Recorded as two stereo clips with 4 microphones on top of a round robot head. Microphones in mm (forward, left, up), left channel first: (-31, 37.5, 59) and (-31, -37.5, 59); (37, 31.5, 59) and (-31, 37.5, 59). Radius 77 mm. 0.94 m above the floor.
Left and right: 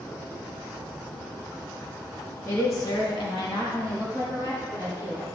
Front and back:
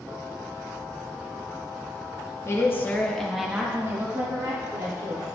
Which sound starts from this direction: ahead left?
A woman speaking, at 2.5 s.